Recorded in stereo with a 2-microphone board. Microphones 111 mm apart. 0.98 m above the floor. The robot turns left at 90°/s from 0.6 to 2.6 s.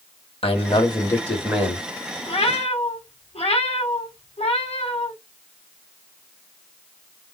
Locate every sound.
0.4 s a man speaking: 75° left, 1.6 m; by 1.9 s 40° right, 1.6 m
2.3 s a cat meowing: 120° left, 1.4 m; by 5.1 s 90° left, 1.4 m